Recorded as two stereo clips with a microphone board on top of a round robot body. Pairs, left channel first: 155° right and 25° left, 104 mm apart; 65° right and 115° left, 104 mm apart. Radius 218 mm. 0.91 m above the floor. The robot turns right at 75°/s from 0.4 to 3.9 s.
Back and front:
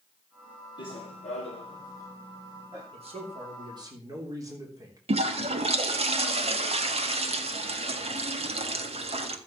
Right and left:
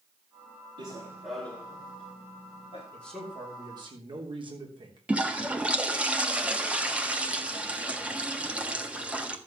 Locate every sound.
0.8 s running footsteps: 155° left, 1.8 m; by 2.8 s 35° right, 4 m
2.9 s a man speaking: 5° left, 3 m; by 5.0 s 80° left, 3 m
5.1 s a toilet flushing: 35° left, 1.5 m